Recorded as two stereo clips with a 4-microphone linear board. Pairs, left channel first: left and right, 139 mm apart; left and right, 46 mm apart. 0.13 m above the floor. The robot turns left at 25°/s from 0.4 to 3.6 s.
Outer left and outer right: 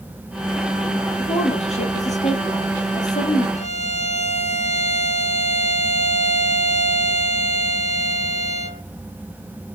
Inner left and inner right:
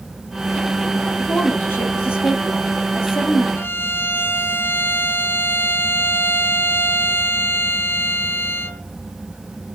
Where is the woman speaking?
130° left, 3.5 m; by 3.5 s 75° left, 3.5 m.